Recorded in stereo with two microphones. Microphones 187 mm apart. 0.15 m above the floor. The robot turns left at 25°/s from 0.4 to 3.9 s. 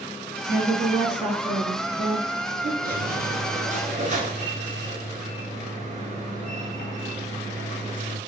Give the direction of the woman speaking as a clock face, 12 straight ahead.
1 o'clock.